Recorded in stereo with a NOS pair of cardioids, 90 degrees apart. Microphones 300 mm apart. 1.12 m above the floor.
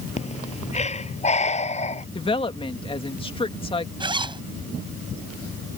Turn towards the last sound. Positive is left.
turn(degrees=-15)